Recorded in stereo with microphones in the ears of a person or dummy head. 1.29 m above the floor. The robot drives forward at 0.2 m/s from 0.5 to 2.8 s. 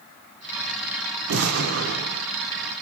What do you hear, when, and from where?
1.3 s an explosion: 80° right, 0.8 m; by 2.2 s 75° right (ahead or behind), 0.8 m